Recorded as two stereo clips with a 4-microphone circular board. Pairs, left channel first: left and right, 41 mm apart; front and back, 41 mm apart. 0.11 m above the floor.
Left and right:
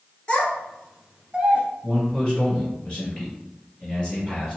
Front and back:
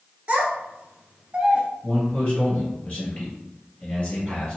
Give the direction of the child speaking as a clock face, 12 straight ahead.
7 o'clock.